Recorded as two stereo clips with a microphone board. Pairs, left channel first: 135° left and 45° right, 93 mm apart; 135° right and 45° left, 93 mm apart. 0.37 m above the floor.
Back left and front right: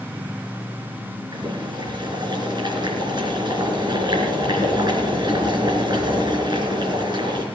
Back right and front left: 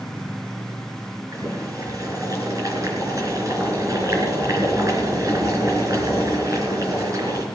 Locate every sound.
1.3 s boiling: 10° right, 4 m